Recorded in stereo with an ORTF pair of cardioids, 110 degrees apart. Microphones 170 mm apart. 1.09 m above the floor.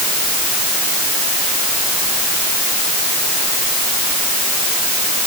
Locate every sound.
Only background noise.